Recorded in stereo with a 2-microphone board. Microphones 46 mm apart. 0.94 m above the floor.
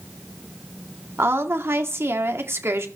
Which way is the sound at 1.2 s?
60° right (ahead or behind).